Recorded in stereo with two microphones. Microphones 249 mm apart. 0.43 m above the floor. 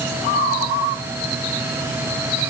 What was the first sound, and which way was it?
Only background noise.